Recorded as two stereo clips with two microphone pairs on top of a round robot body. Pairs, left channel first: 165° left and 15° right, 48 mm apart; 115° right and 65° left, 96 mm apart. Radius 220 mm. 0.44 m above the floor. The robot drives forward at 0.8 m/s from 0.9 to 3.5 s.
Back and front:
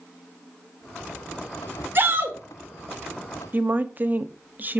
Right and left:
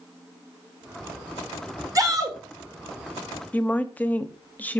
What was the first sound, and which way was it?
A shout, 15° left.